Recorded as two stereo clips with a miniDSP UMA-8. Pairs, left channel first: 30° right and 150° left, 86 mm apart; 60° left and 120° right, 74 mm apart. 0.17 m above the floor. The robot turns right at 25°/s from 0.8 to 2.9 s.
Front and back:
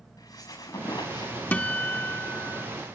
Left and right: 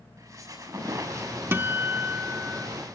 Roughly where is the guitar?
Right.